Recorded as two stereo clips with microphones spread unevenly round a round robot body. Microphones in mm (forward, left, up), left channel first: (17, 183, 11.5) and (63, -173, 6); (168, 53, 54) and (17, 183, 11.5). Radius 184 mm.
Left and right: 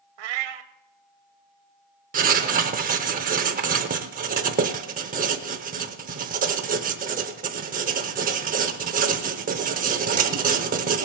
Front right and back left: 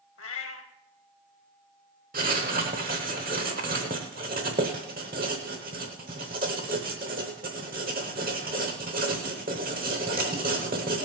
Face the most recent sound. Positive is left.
turn(degrees=-150)